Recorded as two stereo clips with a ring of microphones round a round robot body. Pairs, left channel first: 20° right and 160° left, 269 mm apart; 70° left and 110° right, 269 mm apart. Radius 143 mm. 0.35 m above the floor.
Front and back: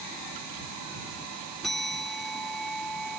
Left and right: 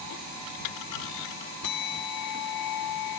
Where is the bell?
65° left.